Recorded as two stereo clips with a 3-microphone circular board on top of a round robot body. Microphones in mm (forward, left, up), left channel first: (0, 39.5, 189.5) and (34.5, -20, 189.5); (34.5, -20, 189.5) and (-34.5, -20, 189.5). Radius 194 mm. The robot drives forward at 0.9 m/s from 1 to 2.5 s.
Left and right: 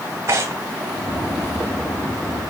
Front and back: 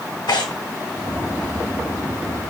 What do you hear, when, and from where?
0.3 s tearing paper: 10° right, 0.9 m